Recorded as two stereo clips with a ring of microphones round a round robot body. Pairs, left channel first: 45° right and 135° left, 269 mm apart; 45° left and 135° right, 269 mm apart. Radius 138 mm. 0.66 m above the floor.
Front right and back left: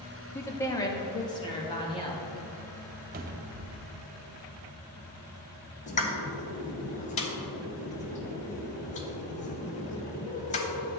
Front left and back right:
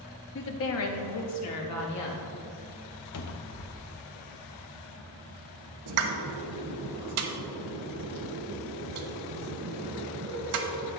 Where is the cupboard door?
75° left, 0.6 m.